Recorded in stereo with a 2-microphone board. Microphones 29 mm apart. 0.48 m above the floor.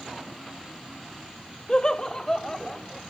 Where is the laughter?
25° left (ahead or behind), 0.9 m; by 3.0 s 10° left (ahead or behind), 1.1 m.